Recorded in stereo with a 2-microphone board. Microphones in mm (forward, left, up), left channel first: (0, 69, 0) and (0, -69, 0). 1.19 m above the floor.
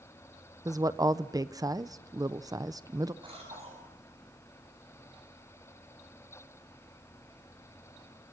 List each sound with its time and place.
0.7 s a woman speaking: 25° right (ahead or behind), 0.7 m
3.2 s a cough: 40° right (ahead or behind), 7 m